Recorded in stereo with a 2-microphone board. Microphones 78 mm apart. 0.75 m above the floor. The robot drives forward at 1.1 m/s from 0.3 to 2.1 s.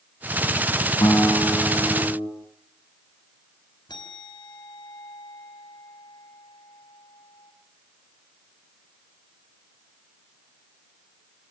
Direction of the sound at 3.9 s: 75° left (ahead or behind).